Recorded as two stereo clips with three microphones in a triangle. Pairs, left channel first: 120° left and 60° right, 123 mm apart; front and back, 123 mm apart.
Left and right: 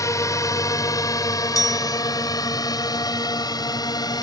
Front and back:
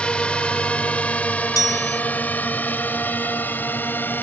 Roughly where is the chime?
Ahead left.